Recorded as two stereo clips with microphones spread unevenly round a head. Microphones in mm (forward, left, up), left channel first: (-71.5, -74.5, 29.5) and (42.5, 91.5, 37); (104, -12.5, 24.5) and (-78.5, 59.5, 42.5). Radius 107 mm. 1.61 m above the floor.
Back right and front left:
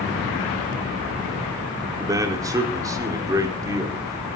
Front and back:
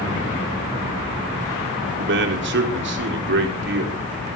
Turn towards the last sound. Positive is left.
turn(degrees=130)